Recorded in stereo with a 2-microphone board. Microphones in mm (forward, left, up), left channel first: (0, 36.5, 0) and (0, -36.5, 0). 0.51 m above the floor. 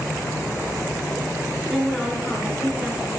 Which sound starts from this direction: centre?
A woman speaking, at 1.7 s.